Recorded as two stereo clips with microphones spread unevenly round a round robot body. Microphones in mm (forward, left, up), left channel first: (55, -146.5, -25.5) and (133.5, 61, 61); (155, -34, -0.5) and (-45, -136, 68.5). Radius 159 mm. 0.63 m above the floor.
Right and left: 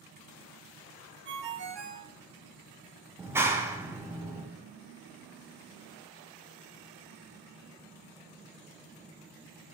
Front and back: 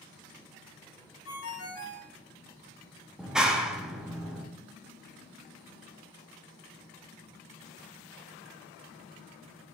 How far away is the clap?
About 0.5 m.